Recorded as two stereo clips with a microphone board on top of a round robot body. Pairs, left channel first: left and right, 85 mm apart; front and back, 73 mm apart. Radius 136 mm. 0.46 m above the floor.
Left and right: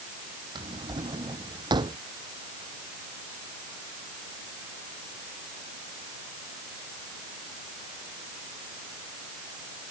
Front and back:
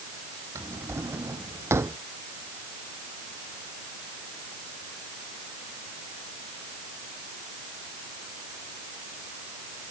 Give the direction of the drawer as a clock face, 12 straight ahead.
4 o'clock.